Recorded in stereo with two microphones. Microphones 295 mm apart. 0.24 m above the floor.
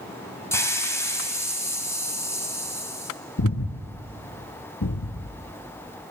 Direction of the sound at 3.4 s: 75° left (ahead or behind).